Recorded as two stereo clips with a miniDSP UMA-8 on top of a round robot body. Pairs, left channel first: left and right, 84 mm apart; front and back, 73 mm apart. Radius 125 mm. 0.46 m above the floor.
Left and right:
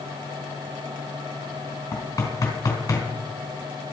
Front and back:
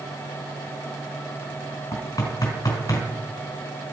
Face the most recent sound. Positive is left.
turn(degrees=45)